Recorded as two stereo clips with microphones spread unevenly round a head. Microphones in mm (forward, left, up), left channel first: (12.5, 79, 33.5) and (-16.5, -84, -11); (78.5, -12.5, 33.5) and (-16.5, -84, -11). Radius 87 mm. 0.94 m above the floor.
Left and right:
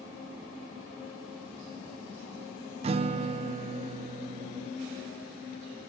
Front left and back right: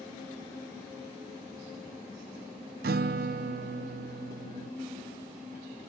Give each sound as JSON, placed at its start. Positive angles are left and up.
{"t": 2.8, "sound": "a guitar", "azimuth_deg": -165, "distance_m": 0.5}